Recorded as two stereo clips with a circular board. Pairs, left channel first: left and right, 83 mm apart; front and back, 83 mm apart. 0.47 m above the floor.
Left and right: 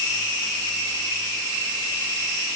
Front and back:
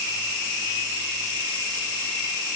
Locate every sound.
Only background noise.